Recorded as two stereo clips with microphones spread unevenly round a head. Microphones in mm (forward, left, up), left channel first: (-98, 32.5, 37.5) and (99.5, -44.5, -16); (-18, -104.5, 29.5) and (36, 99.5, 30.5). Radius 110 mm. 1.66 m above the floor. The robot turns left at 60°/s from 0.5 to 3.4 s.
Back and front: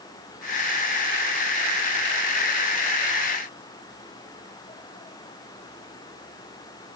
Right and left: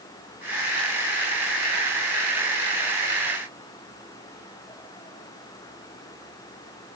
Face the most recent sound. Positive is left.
No sound to turn to.